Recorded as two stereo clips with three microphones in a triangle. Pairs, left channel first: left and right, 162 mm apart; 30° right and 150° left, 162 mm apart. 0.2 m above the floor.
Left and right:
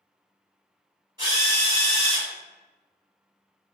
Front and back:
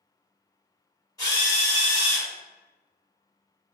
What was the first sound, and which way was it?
A drill, 65° right.